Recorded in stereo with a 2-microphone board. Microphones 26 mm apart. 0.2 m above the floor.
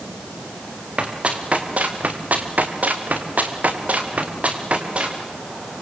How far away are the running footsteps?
About 4.5 m.